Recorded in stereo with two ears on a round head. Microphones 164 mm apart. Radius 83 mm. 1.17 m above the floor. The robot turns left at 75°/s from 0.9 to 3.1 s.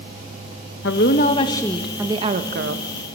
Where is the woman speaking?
70° left, 1.4 m; by 2.9 s 80° right, 1.4 m.